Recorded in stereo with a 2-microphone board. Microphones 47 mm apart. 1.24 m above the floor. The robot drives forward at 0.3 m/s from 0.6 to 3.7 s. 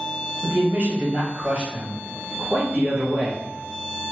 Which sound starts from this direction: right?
A man speaking, at 0.4 s.